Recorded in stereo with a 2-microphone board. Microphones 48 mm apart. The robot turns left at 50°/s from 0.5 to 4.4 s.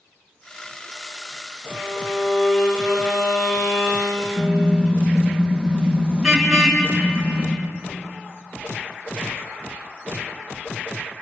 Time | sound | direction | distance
1.7 | a violin | 175° left | 8 m
4.4 | a car horn | 5° left (ahead or behind) | 4.5 m